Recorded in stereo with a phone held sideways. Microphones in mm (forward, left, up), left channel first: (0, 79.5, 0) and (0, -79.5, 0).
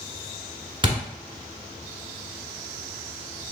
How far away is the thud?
About 1.1 m.